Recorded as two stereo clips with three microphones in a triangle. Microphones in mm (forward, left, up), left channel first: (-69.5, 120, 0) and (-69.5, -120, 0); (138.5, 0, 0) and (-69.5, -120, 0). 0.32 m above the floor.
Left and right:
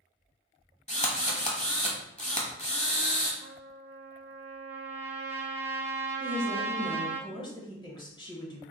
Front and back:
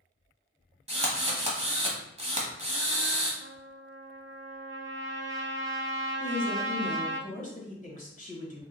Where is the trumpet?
125° right, 0.8 m.